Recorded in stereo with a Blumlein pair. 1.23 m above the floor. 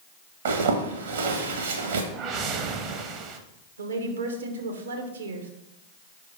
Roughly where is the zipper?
Ahead right.